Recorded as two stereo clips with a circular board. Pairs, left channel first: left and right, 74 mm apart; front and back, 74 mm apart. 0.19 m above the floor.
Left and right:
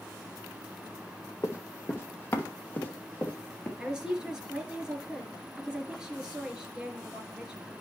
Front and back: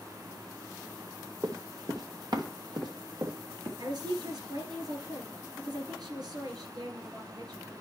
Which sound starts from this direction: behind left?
Running footsteps, at 1.4 s.